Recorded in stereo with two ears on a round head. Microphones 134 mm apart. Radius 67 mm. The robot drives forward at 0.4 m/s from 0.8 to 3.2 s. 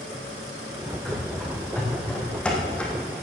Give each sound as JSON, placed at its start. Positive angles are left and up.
{"t": 1.1, "sound": "running footsteps", "side_deg": 5, "distance_m": 4.5}